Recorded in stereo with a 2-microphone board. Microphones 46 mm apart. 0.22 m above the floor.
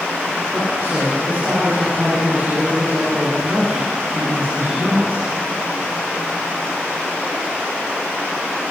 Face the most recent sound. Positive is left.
turn(degrees=-50)  # may be behind; listen again after turning